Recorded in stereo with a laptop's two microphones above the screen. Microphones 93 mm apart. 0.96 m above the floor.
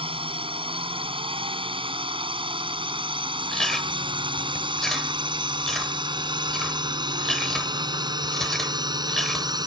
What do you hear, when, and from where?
0.0 s a drone: 75° right (ahead or behind); by 9.7 s 45° right (ahead or behind)
3.5 s chewing: 5° left (ahead or behind)